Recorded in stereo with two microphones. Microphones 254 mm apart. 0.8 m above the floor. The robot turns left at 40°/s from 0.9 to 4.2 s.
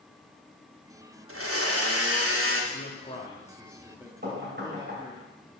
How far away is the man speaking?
About 1.5 m.